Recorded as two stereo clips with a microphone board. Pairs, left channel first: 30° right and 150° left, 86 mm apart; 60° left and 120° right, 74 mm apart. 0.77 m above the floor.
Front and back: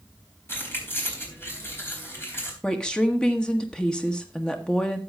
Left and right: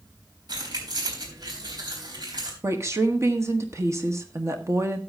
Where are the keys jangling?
95° right, 4 m.